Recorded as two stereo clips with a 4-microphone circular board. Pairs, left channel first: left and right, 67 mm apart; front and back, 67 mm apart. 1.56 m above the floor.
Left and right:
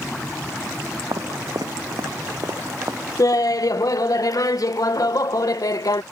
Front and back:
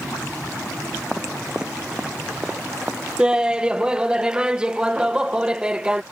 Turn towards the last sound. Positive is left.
turn(degrees=105)